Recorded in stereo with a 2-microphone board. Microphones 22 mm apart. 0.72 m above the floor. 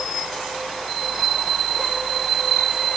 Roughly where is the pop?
I don't hear a pop.